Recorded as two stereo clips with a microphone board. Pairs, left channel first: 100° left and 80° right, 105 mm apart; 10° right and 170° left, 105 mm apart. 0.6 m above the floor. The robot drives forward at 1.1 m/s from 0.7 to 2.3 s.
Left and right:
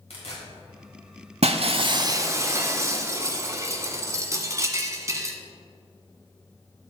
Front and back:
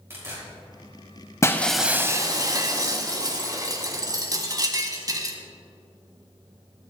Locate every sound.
0.1 s tearing paper: 105° left, 3.5 m; by 1.8 s 125° left, 4 m
1.4 s breaking glass: 70° right, 0.8 m; by 5.3 s 140° right, 1.0 m